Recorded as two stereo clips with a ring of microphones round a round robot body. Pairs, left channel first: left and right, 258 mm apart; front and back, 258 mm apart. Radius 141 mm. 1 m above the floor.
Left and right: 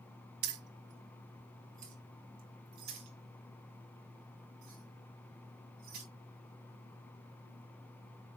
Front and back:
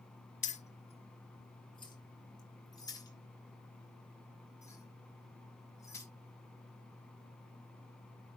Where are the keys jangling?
60° right, 1.0 m; by 6.0 s 80° right, 5 m.